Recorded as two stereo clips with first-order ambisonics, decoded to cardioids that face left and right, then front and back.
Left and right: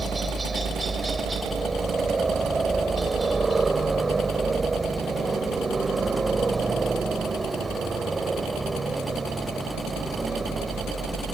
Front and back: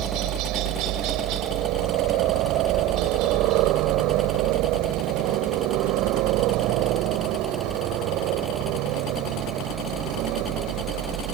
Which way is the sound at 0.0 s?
165° right.